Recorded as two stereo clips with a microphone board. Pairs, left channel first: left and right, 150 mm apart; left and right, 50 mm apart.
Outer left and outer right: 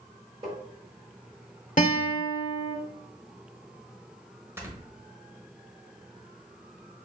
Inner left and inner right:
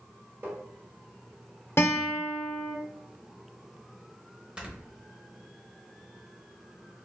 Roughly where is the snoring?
Centre.